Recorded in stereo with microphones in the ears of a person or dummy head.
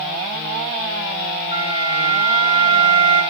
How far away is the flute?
About 2 m.